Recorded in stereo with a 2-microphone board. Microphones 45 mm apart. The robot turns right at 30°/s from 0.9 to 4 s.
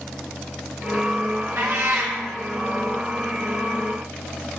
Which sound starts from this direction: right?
A cat meowing, at 1.6 s.